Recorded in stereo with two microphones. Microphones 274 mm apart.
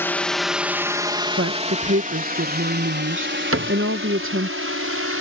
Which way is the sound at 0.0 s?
10° left (ahead or behind).